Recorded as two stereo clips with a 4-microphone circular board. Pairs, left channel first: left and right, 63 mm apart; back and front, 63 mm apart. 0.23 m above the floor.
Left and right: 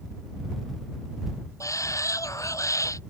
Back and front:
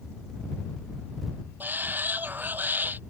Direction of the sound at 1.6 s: 60° left.